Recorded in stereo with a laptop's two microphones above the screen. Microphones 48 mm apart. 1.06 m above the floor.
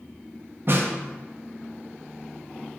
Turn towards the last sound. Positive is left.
turn(degrees=-50)  # may be behind; listen again after turning